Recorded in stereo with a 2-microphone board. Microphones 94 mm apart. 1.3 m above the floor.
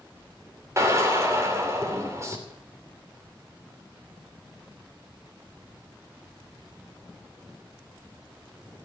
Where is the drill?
30° right (ahead or behind), 3 m.